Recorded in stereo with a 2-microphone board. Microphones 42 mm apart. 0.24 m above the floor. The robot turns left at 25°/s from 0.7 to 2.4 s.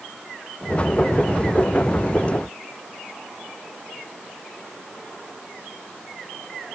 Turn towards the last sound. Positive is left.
No sound to turn to.